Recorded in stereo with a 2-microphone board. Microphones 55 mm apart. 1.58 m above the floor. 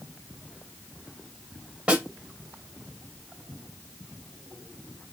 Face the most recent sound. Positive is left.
turn(degrees=-25)  # may be behind; listen again after turning